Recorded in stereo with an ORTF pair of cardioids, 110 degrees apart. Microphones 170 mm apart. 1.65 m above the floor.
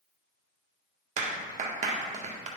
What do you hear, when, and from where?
1.2 s a clap: 45° right, 1.7 m